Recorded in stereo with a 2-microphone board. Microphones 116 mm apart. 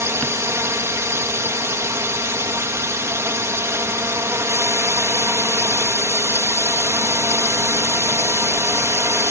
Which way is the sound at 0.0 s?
25° right (ahead or behind).